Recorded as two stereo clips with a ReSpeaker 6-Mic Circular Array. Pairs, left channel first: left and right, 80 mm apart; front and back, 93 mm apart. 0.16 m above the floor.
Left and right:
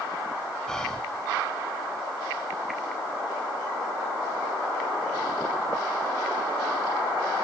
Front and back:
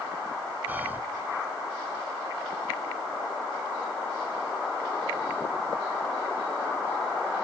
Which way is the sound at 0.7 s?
155° left.